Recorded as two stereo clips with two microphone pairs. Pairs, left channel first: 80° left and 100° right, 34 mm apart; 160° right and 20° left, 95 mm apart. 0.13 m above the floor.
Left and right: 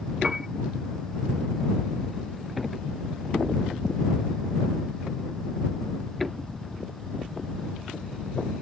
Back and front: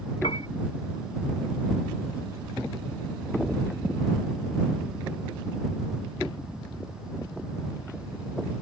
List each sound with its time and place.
0.2 s a piano: 170° right